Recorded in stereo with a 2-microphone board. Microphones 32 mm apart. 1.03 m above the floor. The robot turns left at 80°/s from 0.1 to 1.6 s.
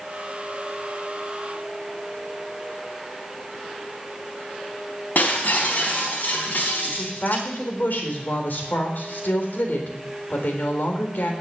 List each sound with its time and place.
5.2 s breaking glass: 70° left (ahead or behind), 4 m
6.8 s a woman speaking: 75° left (ahead or behind), 3.5 m